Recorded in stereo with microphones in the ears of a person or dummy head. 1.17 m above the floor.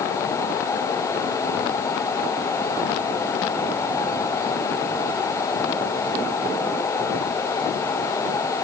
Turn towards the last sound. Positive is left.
No sound to turn to.